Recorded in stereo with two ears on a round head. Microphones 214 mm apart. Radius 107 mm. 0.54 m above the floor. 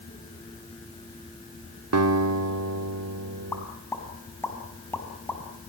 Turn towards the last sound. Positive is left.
turn(degrees=10)  # may be behind; listen again after turning